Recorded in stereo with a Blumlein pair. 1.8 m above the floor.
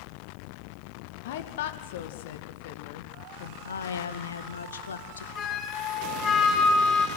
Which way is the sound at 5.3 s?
25° left.